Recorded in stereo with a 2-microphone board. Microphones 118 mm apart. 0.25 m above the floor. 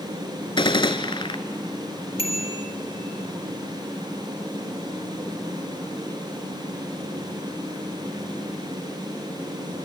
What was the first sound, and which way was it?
A gunshot, 45° left (ahead or behind).